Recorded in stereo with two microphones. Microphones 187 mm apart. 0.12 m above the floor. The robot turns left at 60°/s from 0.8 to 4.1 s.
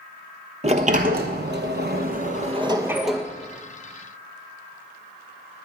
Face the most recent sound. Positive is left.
turn(degrees=120)